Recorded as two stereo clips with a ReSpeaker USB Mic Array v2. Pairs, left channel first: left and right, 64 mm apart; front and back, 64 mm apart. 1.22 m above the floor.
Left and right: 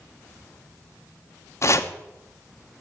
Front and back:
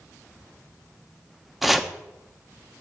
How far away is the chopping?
About 0.8 m.